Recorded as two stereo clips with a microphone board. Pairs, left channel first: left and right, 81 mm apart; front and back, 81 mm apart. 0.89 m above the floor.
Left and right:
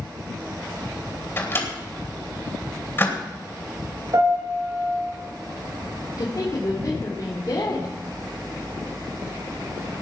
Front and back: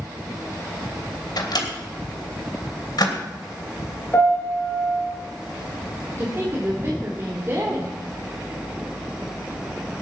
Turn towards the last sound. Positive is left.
turn(degrees=130)